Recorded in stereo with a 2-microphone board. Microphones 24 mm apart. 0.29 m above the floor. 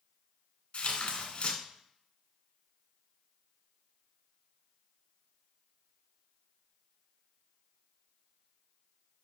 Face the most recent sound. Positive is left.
turn(degrees=40)  # may be behind; listen again after turning